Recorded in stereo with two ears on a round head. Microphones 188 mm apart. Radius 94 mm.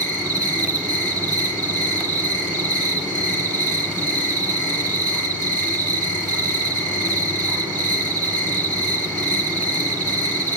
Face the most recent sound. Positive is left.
turn(degrees=-40)  # may be behind; listen again after turning